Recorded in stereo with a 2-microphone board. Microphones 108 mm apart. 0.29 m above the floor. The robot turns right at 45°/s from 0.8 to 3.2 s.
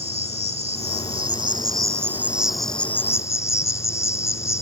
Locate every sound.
0.0 s an insect: 80° right; by 4.6 s 30° left